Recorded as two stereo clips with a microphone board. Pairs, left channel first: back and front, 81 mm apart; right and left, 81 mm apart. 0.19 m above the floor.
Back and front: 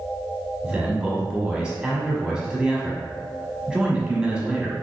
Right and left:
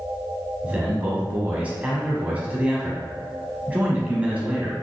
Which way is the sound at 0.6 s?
60° left.